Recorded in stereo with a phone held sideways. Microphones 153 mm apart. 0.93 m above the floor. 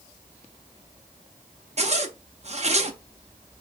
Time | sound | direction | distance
1.8 | a zipper | 45° right (ahead or behind) | 0.6 m